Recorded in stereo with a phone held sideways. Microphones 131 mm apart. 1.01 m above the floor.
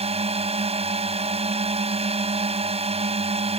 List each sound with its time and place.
0.0 s a drone: 50° right (ahead or behind)